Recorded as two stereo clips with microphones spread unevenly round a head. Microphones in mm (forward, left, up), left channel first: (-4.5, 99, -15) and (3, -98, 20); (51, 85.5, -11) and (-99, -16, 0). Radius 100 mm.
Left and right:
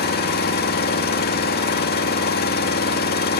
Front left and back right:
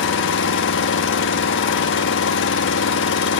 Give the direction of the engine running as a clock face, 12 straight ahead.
10 o'clock.